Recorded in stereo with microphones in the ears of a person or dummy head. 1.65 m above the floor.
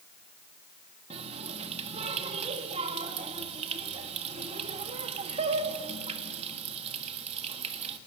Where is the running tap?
35° right (ahead or behind), 1.6 m.